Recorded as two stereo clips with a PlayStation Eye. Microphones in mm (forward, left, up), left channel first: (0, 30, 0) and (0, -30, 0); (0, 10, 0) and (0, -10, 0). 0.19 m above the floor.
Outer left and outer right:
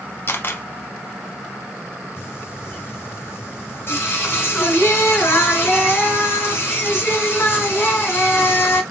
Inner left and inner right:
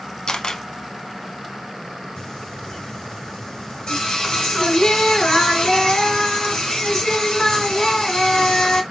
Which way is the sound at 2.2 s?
40° left (ahead or behind).